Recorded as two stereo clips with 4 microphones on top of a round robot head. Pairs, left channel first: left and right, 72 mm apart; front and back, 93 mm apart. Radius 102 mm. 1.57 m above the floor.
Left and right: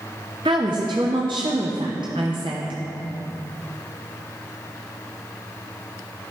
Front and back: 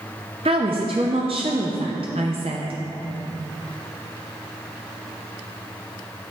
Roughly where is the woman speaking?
Behind right.